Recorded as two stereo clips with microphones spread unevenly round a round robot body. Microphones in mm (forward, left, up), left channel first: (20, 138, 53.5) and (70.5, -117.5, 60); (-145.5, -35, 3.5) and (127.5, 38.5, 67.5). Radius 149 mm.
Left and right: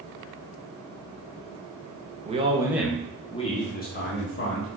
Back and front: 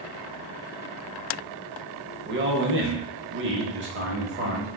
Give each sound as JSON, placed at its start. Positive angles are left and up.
{"t": 2.2, "sound": "a man speaking", "azimuth_deg": -30, "distance_m": 1.0}